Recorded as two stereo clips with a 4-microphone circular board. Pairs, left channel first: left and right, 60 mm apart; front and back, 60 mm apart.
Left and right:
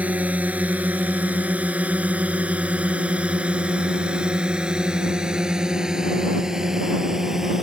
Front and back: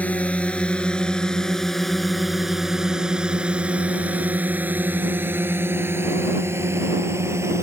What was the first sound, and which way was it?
A drone, 45° right.